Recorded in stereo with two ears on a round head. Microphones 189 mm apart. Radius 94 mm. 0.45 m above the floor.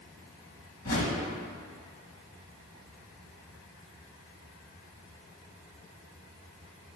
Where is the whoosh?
45° left (ahead or behind), 1.2 m.